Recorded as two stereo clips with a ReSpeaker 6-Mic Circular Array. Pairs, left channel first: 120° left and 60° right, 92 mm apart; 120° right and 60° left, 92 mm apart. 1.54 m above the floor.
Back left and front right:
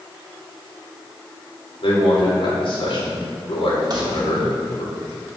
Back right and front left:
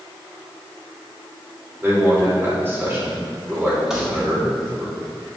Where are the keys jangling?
25° right, 2 m.